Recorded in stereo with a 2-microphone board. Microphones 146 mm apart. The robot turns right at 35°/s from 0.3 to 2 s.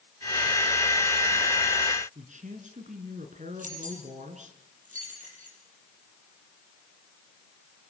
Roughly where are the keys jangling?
Right.